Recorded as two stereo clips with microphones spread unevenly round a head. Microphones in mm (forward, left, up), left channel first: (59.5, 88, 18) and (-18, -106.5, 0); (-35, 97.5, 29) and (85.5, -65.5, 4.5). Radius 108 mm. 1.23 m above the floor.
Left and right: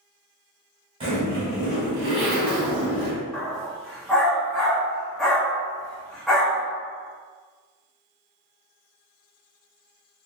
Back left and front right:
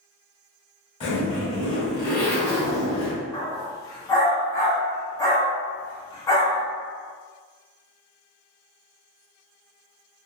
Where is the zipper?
Straight behind, 1.6 m.